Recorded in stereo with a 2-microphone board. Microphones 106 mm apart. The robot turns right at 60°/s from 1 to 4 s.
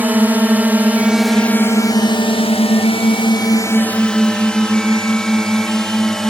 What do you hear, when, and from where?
0.0 s a drone: 15° right (ahead or behind); by 6.3 s 5° left (ahead or behind)